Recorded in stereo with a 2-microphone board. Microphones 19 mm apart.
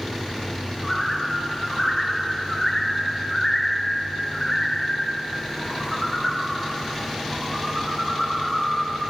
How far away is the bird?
About 1.4 m.